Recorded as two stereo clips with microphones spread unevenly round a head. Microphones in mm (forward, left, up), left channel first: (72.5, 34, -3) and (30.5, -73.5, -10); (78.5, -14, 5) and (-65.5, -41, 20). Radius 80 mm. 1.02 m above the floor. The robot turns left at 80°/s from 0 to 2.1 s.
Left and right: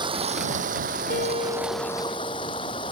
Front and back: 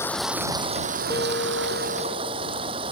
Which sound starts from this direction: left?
A guitar, at 1.1 s.